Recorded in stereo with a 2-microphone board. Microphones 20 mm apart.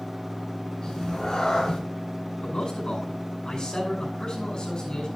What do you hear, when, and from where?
0.8 s a cat meowing: 35° left (ahead or behind), 4 m
2.4 s a man speaking: 45° left (ahead or behind), 8.5 m